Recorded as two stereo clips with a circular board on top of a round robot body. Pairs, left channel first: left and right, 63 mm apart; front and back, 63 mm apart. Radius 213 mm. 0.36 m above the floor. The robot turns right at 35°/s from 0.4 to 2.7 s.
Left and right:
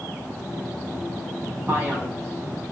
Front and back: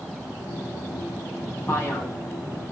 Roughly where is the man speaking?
Ahead right.